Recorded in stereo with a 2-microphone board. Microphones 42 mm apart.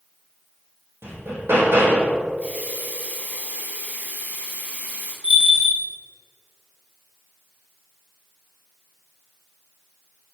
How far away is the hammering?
About 4.5 m.